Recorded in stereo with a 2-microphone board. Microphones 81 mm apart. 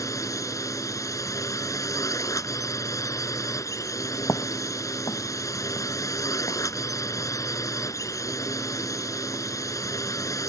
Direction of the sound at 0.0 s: 40° left (ahead or behind).